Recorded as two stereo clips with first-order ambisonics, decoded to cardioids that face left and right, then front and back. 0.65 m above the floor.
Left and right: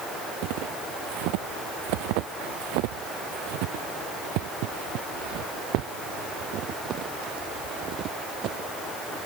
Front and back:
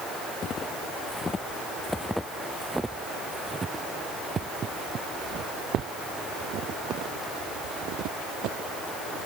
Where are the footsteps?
65° right; by 9.3 s 145° right.